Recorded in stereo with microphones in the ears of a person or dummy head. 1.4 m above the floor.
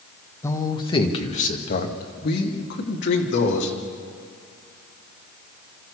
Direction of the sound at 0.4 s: 15° left (ahead or behind).